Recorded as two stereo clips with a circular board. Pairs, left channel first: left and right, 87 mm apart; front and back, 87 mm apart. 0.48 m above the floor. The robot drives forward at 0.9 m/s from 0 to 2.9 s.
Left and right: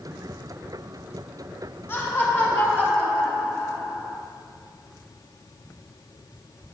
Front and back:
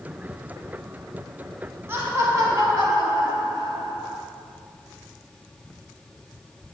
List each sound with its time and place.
1.9 s laughter: 135° left, 1.6 m; by 4.2 s 155° left, 2 m